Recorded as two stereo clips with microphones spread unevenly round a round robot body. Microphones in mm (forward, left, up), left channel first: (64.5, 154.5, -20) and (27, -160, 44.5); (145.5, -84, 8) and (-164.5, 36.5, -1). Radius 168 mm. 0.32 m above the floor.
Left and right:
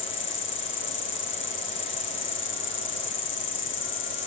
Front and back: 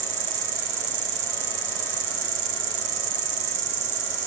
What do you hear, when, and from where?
0.0 s an insect: 140° left, 1.0 m